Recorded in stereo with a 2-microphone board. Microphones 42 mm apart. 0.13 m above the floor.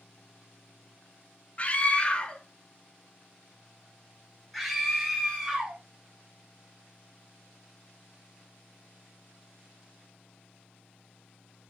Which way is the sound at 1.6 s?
35° left (ahead or behind).